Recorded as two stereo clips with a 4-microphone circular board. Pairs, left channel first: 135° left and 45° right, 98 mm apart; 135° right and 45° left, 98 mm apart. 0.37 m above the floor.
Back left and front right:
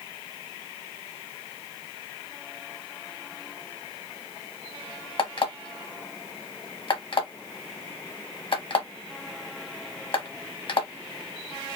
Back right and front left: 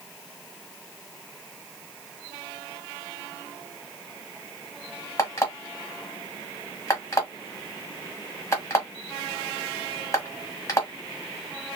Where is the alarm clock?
165° left, 1.3 m.